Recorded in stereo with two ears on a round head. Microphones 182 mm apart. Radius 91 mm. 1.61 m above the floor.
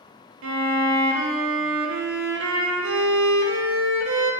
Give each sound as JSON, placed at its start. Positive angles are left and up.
{"t": 0.4, "sound": "a violin", "side_deg": -70, "distance_m": 0.5}